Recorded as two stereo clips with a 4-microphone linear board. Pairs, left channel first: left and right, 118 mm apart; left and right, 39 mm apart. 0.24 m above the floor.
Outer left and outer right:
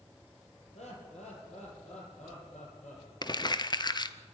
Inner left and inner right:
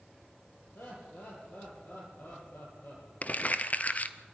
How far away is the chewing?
I don't hear chewing.